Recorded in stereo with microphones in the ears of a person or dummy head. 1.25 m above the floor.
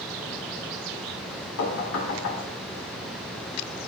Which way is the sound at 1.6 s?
70° left (ahead or behind).